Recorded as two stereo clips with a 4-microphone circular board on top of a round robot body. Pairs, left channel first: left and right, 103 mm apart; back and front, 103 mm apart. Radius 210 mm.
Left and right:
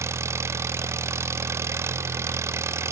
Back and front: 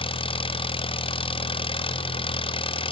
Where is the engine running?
155° right, 0.8 m.